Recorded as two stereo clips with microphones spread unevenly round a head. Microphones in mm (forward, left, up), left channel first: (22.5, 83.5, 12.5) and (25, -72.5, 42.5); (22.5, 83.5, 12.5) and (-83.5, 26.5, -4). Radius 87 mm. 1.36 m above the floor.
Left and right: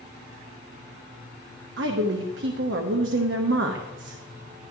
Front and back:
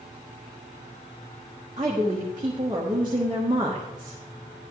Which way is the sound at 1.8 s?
85° right.